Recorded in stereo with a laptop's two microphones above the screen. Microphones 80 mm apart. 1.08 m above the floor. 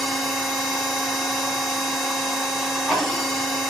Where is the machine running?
Centre (ahead or behind), 1.7 m.